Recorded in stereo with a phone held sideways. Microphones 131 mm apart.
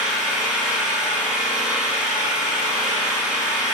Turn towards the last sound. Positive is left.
turn(degrees=-5)  # may be behind; listen again after turning